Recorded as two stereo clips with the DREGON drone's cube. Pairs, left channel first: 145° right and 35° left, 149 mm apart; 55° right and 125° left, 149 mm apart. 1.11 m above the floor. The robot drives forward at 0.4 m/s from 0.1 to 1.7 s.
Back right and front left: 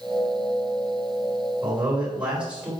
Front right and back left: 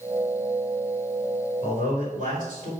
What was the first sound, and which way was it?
A man speaking, 110° left.